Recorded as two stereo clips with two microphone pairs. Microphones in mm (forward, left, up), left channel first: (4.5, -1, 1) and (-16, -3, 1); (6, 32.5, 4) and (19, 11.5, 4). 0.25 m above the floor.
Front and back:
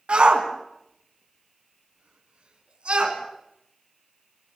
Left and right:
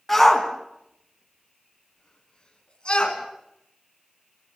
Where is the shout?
155° right, 3 m; by 3.2 s 165° left, 3.5 m.